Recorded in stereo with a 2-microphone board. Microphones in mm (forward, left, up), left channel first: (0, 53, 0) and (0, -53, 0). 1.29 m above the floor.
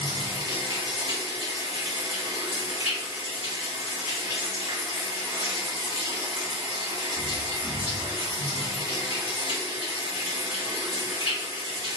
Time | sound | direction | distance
0.0 | running water | 55° right (ahead or behind) | 1.9 m